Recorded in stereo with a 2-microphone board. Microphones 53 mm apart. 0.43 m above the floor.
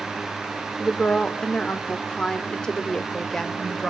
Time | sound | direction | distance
0.8 | a woman speaking | 15° left (ahead or behind) | 1.2 m